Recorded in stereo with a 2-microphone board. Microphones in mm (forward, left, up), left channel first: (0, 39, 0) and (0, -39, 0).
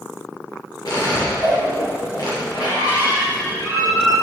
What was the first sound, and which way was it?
A squeak, 60° left (ahead or behind).